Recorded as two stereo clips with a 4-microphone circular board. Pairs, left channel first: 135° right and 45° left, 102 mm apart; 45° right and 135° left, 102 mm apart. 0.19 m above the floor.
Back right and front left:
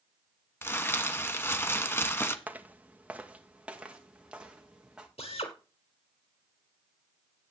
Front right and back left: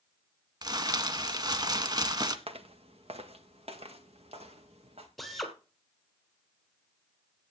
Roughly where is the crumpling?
Behind.